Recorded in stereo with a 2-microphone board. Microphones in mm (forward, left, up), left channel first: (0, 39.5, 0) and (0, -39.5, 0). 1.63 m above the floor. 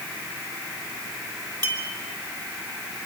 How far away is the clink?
About 3 m.